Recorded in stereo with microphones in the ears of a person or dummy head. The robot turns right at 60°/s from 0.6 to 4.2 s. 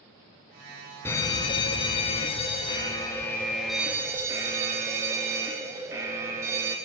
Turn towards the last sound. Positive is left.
turn(degrees=-15)  # may be behind; listen again after turning